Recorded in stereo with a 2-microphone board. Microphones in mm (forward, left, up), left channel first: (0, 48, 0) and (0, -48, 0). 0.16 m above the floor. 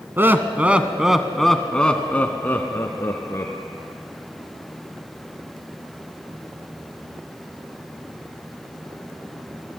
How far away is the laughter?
About 1.2 m.